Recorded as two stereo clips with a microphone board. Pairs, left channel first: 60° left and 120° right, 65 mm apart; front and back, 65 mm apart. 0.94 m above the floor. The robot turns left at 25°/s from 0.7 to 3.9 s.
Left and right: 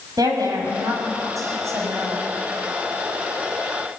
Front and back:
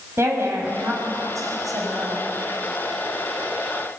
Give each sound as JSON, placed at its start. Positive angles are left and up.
{"t": 0.2, "sound": "a woman speaking", "azimuth_deg": -130, "distance_m": 6.5}